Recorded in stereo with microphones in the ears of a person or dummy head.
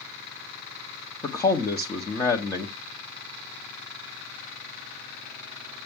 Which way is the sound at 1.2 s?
20° left (ahead or behind).